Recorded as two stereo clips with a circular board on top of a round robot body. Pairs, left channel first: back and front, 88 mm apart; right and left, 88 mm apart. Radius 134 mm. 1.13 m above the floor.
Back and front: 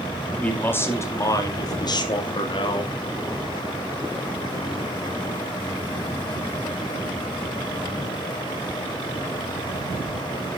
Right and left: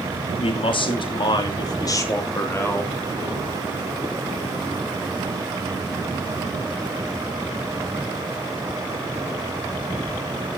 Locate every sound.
0.4 s a man speaking: 105° right, 3 m; by 2.9 s 160° right, 3.5 m